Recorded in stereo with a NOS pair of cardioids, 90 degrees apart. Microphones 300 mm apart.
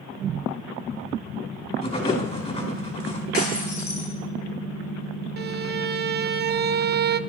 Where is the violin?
35° right, 0.7 m.